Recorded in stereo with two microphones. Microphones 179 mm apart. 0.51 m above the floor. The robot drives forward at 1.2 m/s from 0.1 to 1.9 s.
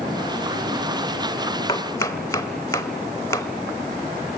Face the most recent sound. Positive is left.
turn(degrees=15)  # may be behind; listen again after turning